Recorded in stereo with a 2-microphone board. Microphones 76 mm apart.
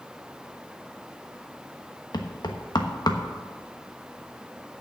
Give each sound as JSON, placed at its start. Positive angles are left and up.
{"t": 2.1, "sound": "knocking", "side_deg": 65, "distance_m": 1.1}